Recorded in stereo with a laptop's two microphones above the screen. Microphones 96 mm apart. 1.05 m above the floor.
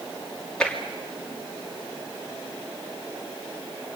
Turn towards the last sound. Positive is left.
turn(degrees=10)  # may be behind; listen again after turning